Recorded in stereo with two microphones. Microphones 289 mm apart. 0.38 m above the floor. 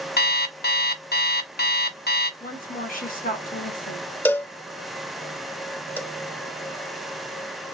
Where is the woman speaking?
30° left (ahead or behind), 1.3 m.